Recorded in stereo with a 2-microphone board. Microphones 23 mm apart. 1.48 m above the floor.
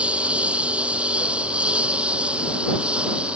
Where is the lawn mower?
70° right (ahead or behind); by 3.4 s 60° right (ahead or behind).